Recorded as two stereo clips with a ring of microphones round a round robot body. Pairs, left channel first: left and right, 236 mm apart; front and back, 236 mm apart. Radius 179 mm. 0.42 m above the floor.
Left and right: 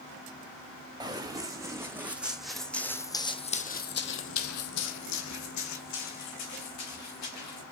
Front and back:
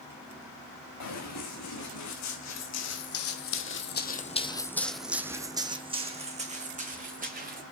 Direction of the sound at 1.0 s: 15° right.